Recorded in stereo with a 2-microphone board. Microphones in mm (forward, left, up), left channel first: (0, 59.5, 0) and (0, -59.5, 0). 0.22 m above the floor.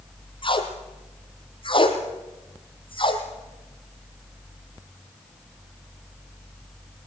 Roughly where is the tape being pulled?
Left.